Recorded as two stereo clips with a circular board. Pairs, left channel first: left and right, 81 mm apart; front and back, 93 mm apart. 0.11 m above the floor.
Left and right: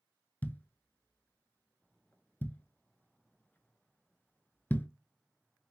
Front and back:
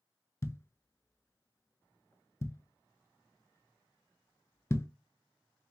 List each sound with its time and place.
0.4 s a thud: 40° left, 0.5 m